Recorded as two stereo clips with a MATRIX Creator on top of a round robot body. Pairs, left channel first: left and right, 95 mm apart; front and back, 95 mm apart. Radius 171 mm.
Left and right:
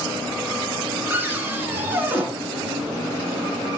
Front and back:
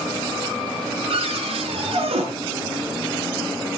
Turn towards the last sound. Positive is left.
turn(degrees=-160)